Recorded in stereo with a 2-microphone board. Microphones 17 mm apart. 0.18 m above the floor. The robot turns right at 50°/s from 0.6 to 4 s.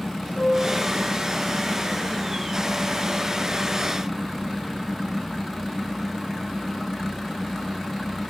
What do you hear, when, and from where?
0.3 s a piano: 80° left, 1.3 m; by 0.8 s 75° left (ahead or behind), 1.3 m